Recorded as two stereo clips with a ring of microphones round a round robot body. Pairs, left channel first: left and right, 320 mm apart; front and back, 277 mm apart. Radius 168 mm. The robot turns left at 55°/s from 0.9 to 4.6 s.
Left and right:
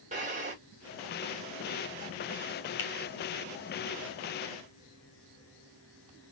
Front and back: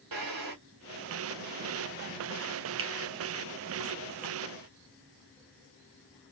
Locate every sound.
0.1 s a drawer: 160° right, 1.5 m
2.8 s a finger snap: 140° left, 1.0 m; by 2.9 s 135° left, 1.0 m